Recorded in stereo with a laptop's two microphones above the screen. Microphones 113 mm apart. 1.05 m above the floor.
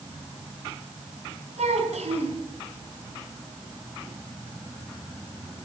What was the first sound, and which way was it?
A child speaking, 80° right.